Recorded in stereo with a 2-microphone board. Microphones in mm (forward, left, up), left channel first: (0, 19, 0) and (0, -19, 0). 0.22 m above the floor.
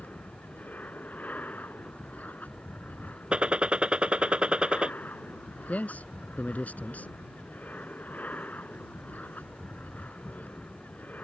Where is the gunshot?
25° right (ahead or behind).